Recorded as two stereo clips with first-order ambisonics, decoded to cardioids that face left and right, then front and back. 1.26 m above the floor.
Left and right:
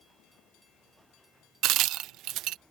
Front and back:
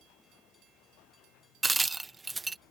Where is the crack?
105° right.